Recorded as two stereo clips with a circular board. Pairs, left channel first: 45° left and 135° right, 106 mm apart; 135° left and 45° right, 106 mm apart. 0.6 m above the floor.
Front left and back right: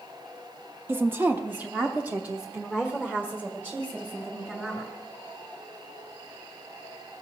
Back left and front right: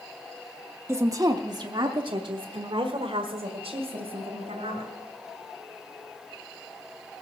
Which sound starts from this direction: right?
A woman speaking, at 0.9 s.